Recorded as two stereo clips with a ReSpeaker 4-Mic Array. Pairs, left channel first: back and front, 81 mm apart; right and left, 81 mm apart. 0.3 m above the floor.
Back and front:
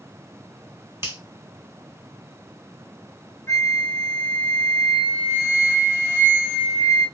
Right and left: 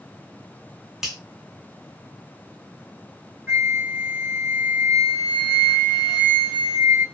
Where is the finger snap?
10° left, 1.0 m.